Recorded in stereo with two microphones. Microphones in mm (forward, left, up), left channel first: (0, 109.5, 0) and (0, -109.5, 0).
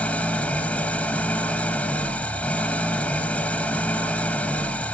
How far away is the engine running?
About 1.0 m.